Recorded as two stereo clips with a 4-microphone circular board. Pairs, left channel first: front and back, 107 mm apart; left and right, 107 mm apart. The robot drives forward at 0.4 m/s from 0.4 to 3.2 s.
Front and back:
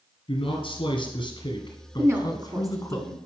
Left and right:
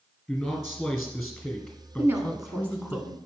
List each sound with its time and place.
0.3 s a man speaking: straight ahead, 2 m
2.0 s a woman speaking: 140° right, 1.1 m; by 3.2 s 155° right, 1.4 m